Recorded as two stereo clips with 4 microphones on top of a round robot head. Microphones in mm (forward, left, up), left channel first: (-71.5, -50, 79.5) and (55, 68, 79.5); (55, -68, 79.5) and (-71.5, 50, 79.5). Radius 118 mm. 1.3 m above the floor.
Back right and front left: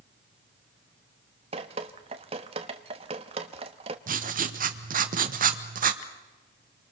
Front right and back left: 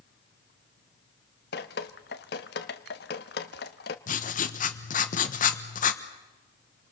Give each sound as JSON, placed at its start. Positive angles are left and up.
{"t": 1.5, "sound": "dripping", "azimuth_deg": -15, "distance_m": 0.9}
{"t": 4.1, "sound": "writing", "azimuth_deg": 0, "distance_m": 1.3}